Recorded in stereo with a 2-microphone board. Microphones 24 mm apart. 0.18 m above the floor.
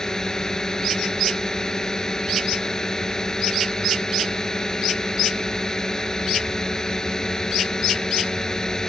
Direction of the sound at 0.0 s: 25° left (ahead or behind).